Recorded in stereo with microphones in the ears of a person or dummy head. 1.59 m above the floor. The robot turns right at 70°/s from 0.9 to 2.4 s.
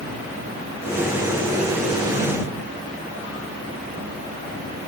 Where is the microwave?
No microwave in this recording.